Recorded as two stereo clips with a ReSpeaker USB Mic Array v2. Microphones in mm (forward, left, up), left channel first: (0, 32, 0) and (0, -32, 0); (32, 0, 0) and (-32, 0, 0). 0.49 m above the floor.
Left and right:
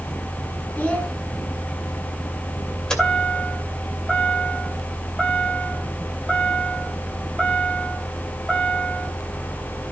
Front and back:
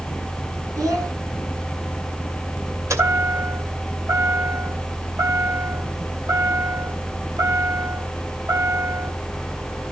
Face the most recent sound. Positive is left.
turn(degrees=165)